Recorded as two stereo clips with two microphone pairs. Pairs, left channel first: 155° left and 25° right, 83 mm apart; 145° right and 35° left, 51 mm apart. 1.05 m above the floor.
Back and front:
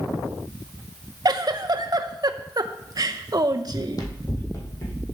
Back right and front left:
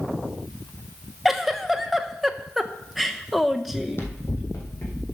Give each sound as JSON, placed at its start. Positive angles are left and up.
{"t": 1.2, "sound": "a giggle", "azimuth_deg": -50, "distance_m": 0.7}
{"t": 3.7, "sound": "running footsteps", "azimuth_deg": 175, "distance_m": 1.9}